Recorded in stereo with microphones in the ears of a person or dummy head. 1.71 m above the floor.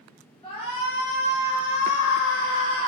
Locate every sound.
0.4 s a shout: 25° left (ahead or behind), 2 m; by 2.9 s 15° left (ahead or behind), 1.1 m